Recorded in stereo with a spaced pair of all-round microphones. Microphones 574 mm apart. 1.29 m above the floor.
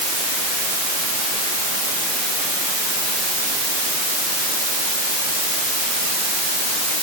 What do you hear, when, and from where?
Only background noise.